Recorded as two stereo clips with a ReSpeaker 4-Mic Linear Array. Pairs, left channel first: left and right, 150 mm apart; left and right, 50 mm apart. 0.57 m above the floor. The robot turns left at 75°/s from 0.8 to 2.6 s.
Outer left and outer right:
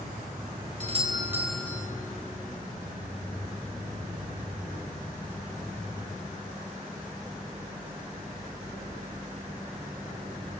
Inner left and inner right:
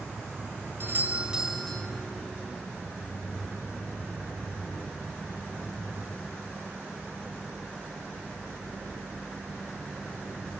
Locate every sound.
0.8 s a doorbell: 125° right, 3 m; by 1.9 s 155° left, 3 m